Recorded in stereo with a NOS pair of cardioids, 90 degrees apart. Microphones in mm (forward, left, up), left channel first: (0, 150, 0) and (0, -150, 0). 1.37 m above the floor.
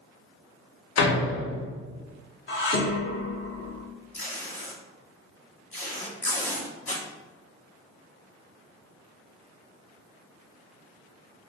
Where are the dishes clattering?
40° left, 1.2 m.